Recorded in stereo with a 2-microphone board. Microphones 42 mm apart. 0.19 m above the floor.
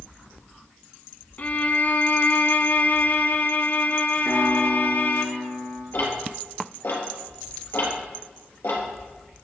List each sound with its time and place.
1.4 s a violin: 45° left (ahead or behind), 0.8 m
4.2 s a piano: 55° left (ahead or behind), 3.5 m
5.9 s ticking: 75° left (ahead or behind), 3.5 m